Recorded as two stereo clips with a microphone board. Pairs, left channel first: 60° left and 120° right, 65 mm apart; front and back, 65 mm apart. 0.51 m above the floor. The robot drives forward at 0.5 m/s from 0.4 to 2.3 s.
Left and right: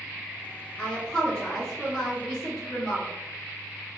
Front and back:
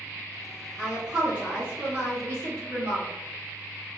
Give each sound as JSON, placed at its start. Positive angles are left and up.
{"t": 0.8, "sound": "a woman speaking", "azimuth_deg": 105, "distance_m": 1.3}